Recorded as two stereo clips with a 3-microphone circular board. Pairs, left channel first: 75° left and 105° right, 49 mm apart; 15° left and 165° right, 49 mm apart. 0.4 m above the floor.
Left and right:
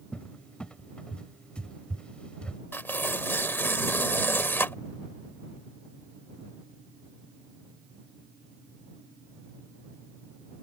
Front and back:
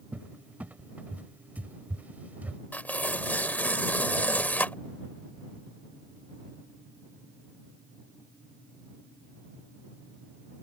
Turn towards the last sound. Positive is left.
turn(degrees=55)